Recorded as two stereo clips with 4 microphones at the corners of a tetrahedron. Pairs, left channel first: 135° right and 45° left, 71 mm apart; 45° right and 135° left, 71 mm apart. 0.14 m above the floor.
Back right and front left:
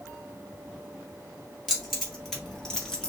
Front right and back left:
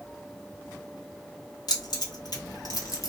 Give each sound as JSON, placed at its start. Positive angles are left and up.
{"t": 1.7, "sound": "keys jangling", "azimuth_deg": -45, "distance_m": 2.0}